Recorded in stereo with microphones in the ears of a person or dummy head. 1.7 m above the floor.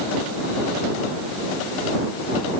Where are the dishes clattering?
No dishes clattering in this recording.